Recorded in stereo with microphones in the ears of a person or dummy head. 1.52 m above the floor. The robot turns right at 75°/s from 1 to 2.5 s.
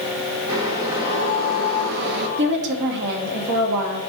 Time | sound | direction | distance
0.5 | boiling | 160° right | 1.0 m
2.4 | a woman speaking | 70° right (ahead or behind) | 2 m